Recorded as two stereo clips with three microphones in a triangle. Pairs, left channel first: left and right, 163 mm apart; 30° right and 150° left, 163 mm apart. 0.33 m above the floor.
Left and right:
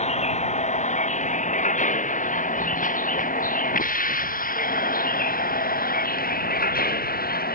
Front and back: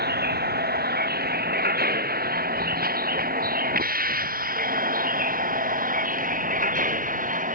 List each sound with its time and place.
0.0 s a vehicle: 135° left; by 7.5 s 115° left